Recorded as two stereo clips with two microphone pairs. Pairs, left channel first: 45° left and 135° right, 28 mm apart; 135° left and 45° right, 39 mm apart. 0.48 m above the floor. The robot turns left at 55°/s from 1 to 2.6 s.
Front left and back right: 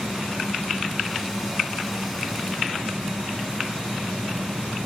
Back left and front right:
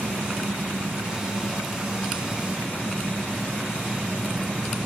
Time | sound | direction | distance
0.0 | an engine running | 30° right | ?